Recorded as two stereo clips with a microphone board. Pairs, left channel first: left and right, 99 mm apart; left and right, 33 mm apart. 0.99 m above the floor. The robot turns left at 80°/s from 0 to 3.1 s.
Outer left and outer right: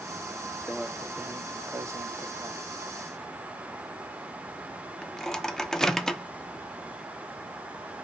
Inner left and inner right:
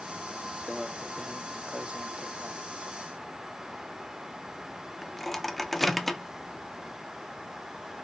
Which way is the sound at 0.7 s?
Centre (ahead or behind).